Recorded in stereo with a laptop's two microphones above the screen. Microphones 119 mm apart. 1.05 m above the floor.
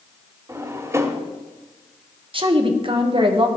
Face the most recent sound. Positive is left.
turn(degrees=-50)  # may be behind; listen again after turning